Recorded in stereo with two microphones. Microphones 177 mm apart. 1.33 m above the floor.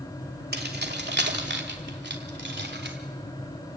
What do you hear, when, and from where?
0.5 s keys jangling: 65° right (ahead or behind), 2.5 m; by 3.0 s 85° right, 3.5 m